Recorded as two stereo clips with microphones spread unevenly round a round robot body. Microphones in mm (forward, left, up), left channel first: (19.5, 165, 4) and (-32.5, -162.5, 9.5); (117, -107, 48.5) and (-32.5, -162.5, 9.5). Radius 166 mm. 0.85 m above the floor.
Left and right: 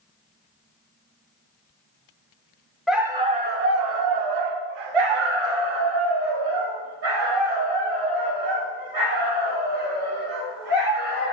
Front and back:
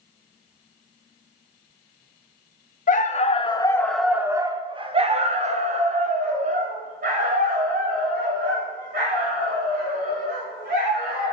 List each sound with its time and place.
2.9 s a dog barking: 10° right, 0.9 m; by 11.3 s 130° right, 5 m